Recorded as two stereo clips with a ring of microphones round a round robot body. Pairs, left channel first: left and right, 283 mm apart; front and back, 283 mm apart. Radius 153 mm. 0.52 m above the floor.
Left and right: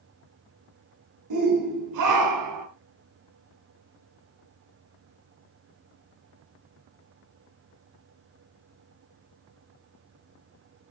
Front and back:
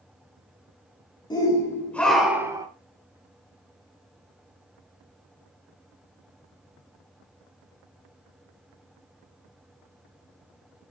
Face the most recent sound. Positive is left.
turn(degrees=-105)